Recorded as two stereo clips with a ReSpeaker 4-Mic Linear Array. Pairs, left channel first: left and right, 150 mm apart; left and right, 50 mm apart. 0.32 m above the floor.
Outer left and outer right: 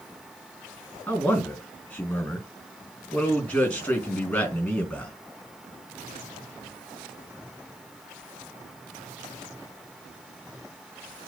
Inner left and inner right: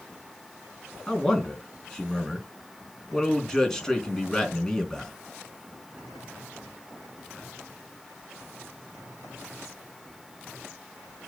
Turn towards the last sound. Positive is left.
turn(degrees=10)  # may be behind; listen again after turning